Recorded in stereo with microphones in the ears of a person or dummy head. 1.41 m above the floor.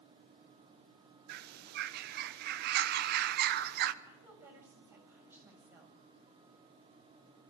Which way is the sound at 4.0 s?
10° right (ahead or behind).